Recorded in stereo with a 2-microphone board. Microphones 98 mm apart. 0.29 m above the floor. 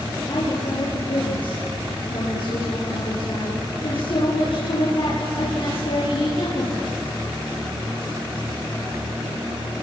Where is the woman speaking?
65° left (ahead or behind), 7.5 m.